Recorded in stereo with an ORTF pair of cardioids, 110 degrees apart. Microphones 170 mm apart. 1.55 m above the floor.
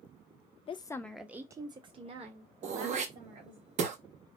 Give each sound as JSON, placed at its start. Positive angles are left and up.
{"t": 0.7, "sound": "a woman speaking", "azimuth_deg": 35, "distance_m": 0.5}
{"t": 2.6, "sound": "throat clearing", "azimuth_deg": -45, "distance_m": 0.7}